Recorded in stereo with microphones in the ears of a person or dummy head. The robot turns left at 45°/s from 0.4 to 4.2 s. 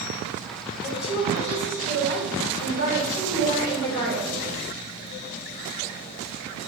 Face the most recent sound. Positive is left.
turn(degrees=0)